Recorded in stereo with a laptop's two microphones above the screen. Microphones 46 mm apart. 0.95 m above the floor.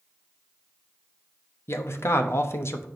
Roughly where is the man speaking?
Left.